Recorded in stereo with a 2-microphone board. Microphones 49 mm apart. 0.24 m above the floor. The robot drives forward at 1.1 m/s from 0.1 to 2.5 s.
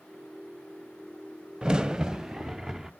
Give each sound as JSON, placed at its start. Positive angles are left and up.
{"t": 1.6, "sound": "a crack", "side_deg": -15, "distance_m": 0.6}